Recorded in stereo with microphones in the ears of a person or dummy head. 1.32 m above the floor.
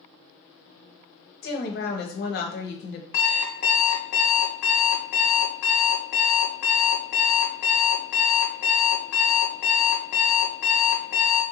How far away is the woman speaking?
About 0.8 m.